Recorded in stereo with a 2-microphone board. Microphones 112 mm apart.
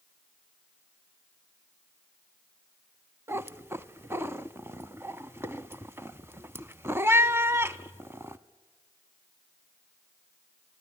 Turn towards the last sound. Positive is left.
turn(degrees=-20)  # may be behind; listen again after turning